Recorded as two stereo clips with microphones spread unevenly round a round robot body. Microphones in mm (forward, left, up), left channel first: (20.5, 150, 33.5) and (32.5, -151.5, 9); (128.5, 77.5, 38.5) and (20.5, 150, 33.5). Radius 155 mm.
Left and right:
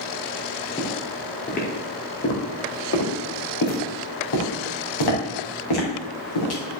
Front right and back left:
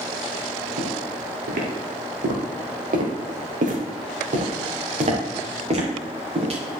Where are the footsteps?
170° left, 3.5 m; by 6.8 s 105° left, 6 m.